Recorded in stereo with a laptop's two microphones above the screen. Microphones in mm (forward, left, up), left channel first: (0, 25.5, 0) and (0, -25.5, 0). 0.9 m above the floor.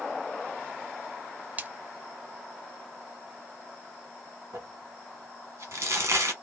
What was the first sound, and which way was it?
A splash, 30° right (ahead or behind).